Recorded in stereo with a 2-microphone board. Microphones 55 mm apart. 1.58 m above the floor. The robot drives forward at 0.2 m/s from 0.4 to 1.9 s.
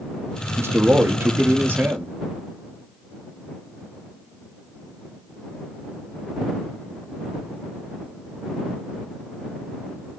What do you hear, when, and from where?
0.6 s a man speaking: 50° right (ahead or behind), 0.6 m; by 2.1 s 40° right (ahead or behind), 0.7 m